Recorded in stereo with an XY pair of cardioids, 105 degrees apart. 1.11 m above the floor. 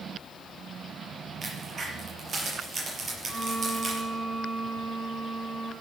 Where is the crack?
45° right, 5.5 m.